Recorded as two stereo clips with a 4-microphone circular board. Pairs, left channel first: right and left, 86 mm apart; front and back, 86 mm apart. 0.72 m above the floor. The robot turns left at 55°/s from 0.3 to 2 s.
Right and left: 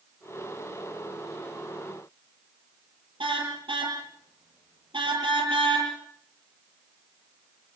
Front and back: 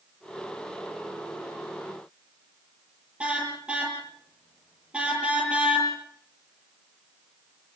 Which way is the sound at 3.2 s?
105° left.